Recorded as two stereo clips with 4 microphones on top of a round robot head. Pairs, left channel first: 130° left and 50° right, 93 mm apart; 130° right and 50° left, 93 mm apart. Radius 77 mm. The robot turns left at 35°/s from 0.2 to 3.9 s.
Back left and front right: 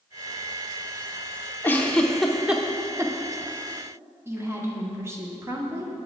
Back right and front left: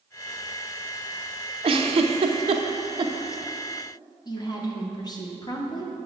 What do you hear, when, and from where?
1.6 s a giggle: 65° left, 0.7 m; by 3.1 s 10° left, 0.7 m
4.2 s a woman speaking: 105° right, 1.5 m